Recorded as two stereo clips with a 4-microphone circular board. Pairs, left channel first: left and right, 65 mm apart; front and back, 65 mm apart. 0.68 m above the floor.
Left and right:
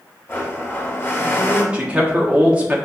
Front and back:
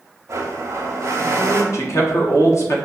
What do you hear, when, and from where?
0.3 s a blender: 145° left, 0.7 m
1.7 s a man speaking: 20° right, 0.8 m